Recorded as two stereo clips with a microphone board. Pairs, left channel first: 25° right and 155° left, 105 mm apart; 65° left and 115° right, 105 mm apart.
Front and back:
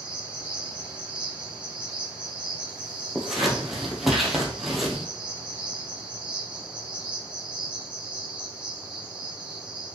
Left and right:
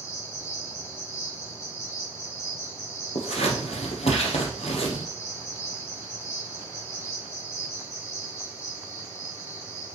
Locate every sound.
0.0 s an insect: 90° left, 1.8 m
3.1 s scissors: 70° left, 1.8 m